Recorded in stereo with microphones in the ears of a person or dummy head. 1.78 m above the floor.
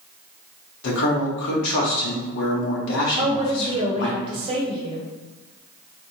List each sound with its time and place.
0.8 s a man speaking: 70° left (ahead or behind), 1.2 m
3.2 s a woman speaking: 35° right (ahead or behind), 0.9 m